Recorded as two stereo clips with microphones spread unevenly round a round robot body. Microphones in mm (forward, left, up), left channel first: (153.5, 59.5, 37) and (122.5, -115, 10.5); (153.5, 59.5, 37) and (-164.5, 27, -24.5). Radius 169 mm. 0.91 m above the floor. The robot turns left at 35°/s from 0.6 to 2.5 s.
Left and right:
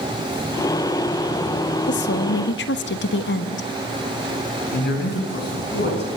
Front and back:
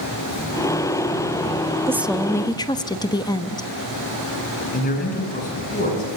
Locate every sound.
1.9 s a woman speaking: 110° left, 1.1 m; by 3.7 s 85° left, 1.1 m
4.7 s a man speaking: 70° left, 9 m